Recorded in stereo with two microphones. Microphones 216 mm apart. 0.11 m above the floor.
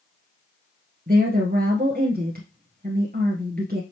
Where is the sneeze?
No sneeze in this recording.